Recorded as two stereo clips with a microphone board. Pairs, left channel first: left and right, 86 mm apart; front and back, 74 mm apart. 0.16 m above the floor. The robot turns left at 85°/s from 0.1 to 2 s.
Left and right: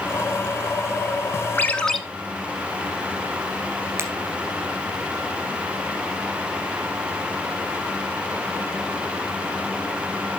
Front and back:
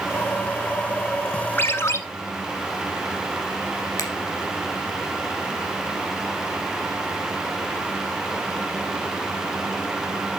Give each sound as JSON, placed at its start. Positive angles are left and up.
{"t": 1.6, "sound": "a ringtone", "azimuth_deg": 35, "distance_m": 0.8}
{"t": 4.0, "sound": "a finger snap", "azimuth_deg": -35, "distance_m": 2.0}